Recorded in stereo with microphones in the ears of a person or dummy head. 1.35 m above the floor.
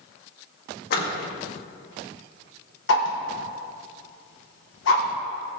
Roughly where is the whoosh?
Left.